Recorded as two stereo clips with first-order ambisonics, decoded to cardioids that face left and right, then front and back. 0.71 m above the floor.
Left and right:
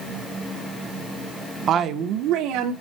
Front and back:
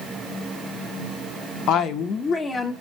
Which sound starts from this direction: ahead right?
A woman speaking, at 1.7 s.